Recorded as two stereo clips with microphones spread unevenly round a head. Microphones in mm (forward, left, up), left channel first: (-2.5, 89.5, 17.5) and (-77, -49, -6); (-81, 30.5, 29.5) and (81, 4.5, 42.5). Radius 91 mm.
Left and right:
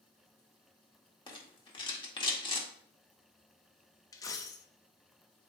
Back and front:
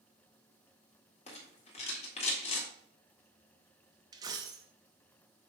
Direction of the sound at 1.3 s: 120° left.